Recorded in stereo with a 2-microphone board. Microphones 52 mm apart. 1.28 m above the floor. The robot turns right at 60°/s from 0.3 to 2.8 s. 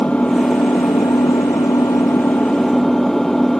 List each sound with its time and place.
0.0 s an engine running: 25° left; by 3.6 s 175° left